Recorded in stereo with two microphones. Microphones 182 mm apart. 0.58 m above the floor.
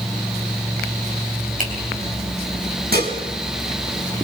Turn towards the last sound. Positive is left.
turn(degrees=-65)  # may be behind; listen again after turning